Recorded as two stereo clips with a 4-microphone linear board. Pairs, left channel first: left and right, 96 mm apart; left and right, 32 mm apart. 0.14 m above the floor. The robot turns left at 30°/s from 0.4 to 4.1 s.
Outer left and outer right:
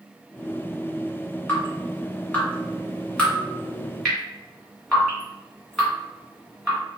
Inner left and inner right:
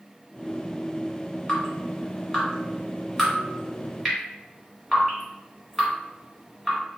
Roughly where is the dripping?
Centre.